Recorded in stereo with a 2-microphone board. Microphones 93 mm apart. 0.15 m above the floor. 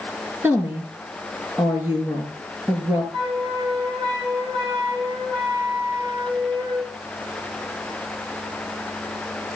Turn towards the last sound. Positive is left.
turn(degrees=-70)  # may be behind; listen again after turning